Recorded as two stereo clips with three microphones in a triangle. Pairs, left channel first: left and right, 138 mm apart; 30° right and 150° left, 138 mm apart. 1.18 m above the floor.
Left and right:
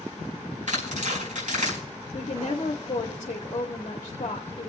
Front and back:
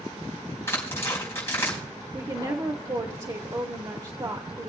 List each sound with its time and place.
0.7 s tearing paper: 100° right, 4.5 m
2.1 s a woman speaking: 105° left, 1.0 m